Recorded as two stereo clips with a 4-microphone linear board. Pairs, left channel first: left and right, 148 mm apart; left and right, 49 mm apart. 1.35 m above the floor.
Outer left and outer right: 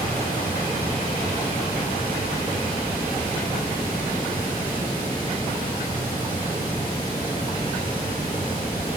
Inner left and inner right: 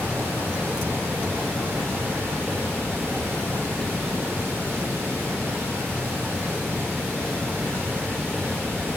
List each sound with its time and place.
0.0 s running water: 75° right (ahead or behind), 1.6 m